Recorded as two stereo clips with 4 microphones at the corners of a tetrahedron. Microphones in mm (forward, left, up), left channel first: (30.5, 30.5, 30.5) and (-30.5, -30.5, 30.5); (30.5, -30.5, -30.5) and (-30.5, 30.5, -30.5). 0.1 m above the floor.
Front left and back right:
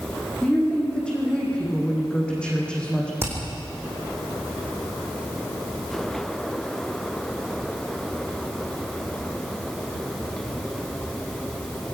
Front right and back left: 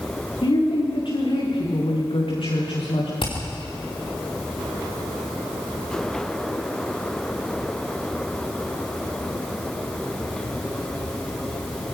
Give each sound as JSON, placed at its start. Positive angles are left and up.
{"t": 0.4, "sound": "a woman speaking", "azimuth_deg": -35, "distance_m": 7.0}
{"t": 3.2, "sound": "hammering", "azimuth_deg": -70, "distance_m": 4.5}